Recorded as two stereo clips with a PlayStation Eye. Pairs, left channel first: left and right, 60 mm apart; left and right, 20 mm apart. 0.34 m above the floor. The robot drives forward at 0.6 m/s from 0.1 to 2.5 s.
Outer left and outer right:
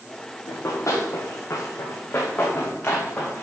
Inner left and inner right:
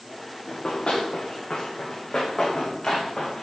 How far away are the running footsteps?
About 2.5 m.